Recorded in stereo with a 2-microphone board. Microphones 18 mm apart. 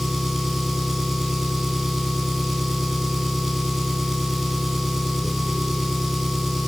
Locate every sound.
0.0 s an engine running: 20° right (ahead or behind), 3.5 m